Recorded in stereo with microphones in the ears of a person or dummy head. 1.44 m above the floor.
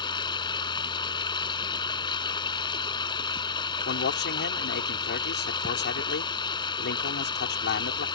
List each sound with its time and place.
0.0 s running water: 25° left (ahead or behind)
3.9 s a man speaking: 55° left (ahead or behind)